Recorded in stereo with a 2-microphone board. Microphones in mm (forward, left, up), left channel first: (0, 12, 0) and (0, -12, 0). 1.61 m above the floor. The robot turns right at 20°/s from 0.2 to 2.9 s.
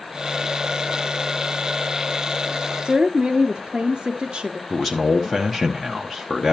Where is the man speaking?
5° left (ahead or behind), 0.8 m.